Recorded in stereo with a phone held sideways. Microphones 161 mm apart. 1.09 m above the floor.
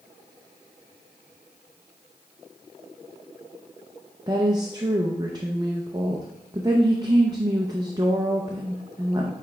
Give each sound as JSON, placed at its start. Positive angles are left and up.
{"t": 4.3, "sound": "a woman speaking", "side_deg": -25, "distance_m": 0.7}